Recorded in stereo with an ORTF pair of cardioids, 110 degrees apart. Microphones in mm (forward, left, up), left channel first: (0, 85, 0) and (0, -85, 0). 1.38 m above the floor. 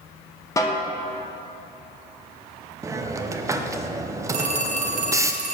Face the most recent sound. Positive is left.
turn(degrees=-45)